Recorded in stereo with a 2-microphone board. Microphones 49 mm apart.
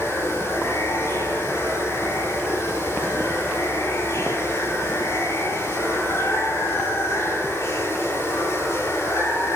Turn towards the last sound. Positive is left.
turn(degrees=75)  # may be behind; listen again after turning